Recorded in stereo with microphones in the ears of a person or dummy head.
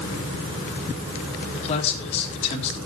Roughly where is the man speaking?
Left.